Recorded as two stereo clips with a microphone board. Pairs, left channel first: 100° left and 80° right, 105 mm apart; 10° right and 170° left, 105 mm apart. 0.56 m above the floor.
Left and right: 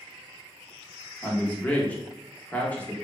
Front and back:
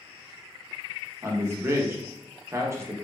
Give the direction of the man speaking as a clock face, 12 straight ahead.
7 o'clock.